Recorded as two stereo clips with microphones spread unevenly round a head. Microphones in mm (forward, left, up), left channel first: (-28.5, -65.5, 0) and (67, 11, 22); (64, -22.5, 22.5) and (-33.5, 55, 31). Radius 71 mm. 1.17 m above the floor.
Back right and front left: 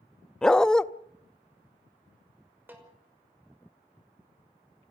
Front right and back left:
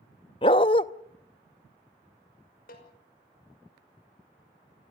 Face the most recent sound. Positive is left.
turn(degrees=-35)